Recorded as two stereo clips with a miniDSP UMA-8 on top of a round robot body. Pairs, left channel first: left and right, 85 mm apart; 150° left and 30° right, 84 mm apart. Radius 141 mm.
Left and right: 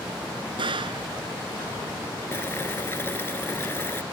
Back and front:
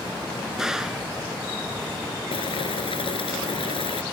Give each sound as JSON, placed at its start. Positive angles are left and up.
{"t": 0.6, "sound": "a gunshot", "azimuth_deg": -115}
{"t": 2.3, "sound": "boiling", "azimuth_deg": 155}